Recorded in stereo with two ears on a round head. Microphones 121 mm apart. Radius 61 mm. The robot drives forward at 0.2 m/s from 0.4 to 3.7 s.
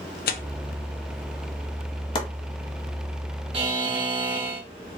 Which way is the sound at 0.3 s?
75° left (ahead or behind).